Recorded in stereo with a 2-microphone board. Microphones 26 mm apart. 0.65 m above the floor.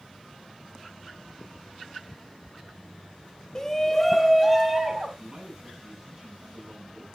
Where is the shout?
25° left (ahead or behind), 1.2 m; by 5.1 s 20° right (ahead or behind), 2.5 m.